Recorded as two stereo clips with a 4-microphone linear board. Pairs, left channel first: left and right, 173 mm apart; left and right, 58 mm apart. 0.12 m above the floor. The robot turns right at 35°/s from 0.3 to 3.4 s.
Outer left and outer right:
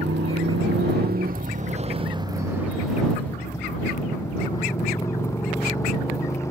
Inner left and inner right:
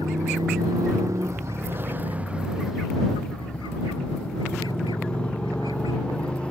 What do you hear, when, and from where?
0.0 s a motorcycle: 90° right; by 6.5 s 15° left